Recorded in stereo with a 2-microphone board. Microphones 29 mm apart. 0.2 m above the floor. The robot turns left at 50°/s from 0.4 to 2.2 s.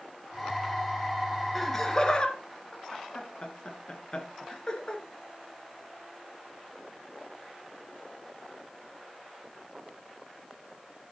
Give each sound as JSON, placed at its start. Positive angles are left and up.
{"t": 1.6, "sound": "laughter", "side_deg": 5, "distance_m": 2.5}